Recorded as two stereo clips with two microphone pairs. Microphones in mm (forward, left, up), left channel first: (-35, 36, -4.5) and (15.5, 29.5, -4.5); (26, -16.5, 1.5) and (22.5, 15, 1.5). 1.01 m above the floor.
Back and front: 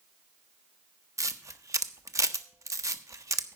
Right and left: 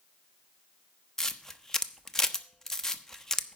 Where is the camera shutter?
10° right, 0.7 m.